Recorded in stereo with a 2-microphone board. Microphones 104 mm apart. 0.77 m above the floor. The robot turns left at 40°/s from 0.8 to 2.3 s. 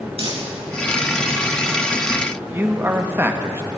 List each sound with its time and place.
0.2 s crumpling: 75° right (ahead or behind), 5 m
2.5 s a man speaking: 20° right (ahead or behind), 1.0 m